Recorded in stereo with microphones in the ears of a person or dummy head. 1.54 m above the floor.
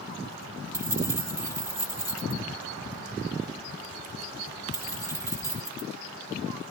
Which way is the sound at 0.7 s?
15° right (ahead or behind).